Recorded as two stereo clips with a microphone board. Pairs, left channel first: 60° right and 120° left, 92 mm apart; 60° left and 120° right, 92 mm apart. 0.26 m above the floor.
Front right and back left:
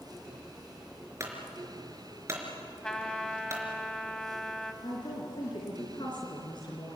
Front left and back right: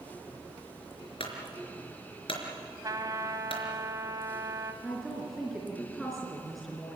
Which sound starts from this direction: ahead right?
A woman speaking, at 4.8 s.